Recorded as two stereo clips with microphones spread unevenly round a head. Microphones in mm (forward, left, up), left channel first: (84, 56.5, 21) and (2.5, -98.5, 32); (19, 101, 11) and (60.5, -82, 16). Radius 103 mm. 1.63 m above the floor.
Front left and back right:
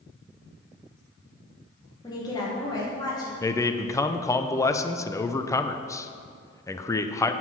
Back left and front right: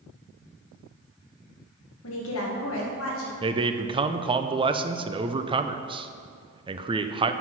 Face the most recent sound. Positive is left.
turn(degrees=-15)